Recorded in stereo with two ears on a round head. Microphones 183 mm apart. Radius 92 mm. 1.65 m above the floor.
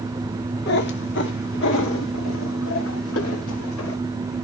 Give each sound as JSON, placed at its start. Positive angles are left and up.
{"t": 0.7, "sound": "a cat meowing", "side_deg": 50, "distance_m": 1.6}